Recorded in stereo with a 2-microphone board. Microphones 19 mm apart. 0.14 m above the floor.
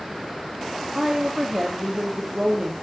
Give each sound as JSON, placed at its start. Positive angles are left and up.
{"t": 0.9, "sound": "a woman speaking", "side_deg": -30, "distance_m": 4.5}